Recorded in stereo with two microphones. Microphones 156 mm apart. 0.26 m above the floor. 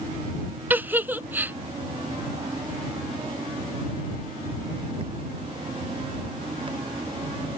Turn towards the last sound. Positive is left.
turn(degrees=-10)  # may be behind; listen again after turning